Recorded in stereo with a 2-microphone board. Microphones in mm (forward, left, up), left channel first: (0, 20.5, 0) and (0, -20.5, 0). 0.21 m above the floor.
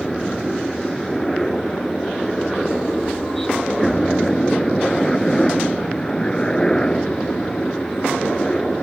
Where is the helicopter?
5° left (ahead or behind); by 8.8 s 20° left (ahead or behind).